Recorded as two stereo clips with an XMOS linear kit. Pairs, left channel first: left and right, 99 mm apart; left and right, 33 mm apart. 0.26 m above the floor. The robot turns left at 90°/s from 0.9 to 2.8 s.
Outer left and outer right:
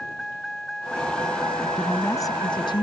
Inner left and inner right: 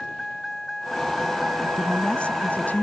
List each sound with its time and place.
0.0 s a vehicle: 5° left; by 2.8 s 170° right
1.6 s a woman speaking: 175° right; by 2.8 s 80° left